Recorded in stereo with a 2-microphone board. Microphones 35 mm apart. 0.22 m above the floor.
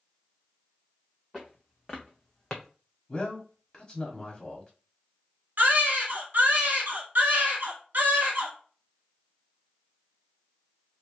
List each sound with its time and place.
1.3 s footsteps: 5° left (ahead or behind), 1.7 m; by 2.7 s 10° left (ahead or behind), 0.8 m
3.1 s a man speaking: 20° left (ahead or behind), 1.1 m
5.6 s a baby crying: 60° right (ahead or behind), 1.3 m